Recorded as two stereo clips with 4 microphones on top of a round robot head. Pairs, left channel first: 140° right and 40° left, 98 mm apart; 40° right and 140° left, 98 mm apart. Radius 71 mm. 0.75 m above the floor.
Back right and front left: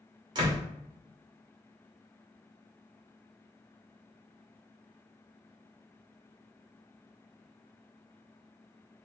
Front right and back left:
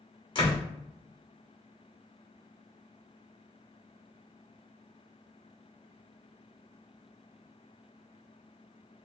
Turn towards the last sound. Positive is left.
turn(degrees=-5)